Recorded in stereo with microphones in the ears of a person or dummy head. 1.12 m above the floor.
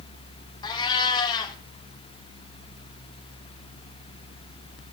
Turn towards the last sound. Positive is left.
turn(degrees=30)  # may be behind; listen again after turning